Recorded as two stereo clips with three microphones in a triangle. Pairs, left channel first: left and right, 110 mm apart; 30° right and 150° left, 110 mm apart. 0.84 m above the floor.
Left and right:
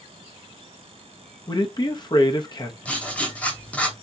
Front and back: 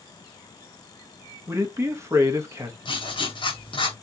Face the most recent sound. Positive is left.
turn(degrees=10)